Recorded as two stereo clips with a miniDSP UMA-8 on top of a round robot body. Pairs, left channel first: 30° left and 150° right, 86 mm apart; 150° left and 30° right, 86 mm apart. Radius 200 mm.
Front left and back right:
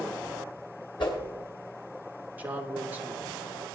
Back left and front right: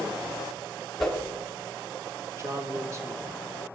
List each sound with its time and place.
1.0 s a whoosh: 65° left, 3 m
2.4 s a man speaking: 80° right, 1.9 m